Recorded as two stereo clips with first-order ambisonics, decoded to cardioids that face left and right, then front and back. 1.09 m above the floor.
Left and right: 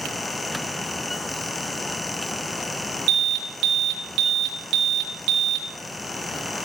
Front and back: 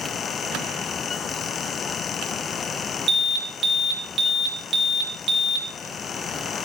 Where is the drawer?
I don't hear a drawer.